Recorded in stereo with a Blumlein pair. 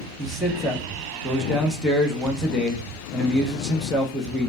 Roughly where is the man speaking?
Ahead.